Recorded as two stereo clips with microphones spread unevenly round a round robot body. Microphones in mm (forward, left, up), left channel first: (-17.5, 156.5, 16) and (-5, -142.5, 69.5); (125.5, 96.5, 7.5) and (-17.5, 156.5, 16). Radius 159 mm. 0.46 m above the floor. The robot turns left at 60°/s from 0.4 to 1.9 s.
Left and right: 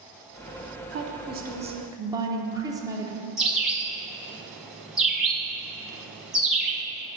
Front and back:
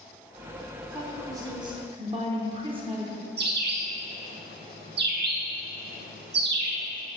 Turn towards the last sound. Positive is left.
turn(degrees=-170)